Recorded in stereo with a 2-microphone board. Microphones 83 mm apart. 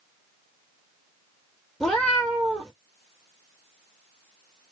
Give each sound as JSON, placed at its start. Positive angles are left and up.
{"t": 1.8, "sound": "a cat meowing", "side_deg": 5, "distance_m": 1.2}